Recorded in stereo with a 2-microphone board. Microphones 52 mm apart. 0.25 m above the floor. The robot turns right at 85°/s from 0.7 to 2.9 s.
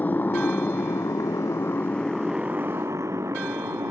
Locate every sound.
0.0 s a motorcycle: 30° left (ahead or behind); by 3.9 s 65° right (ahead or behind)